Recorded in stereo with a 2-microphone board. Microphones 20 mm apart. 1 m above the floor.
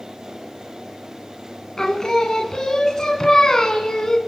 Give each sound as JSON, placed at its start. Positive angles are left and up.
{"t": 1.8, "sound": "singing", "side_deg": 40, "distance_m": 1.3}